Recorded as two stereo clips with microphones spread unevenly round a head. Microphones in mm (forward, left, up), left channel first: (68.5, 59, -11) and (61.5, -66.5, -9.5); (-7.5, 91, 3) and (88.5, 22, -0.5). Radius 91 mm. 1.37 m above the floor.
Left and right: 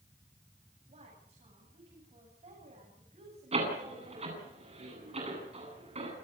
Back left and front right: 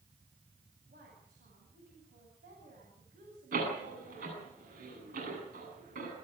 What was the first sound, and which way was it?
A woman speaking, 60° right.